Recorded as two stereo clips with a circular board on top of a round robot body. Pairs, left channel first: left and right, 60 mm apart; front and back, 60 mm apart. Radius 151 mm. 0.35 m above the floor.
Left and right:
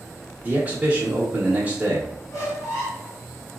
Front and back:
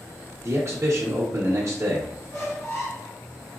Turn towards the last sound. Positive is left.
turn(degrees=45)